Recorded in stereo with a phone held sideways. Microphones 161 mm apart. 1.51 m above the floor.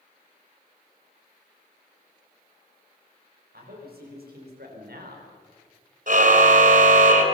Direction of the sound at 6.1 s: 55° right (ahead or behind).